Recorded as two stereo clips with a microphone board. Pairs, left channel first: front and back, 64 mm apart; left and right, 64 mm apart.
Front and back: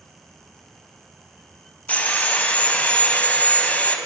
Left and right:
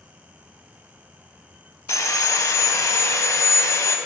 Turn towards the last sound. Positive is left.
turn(degrees=65)